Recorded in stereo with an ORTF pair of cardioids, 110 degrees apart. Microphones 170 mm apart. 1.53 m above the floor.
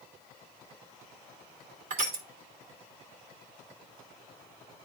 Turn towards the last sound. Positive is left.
turn(degrees=-60)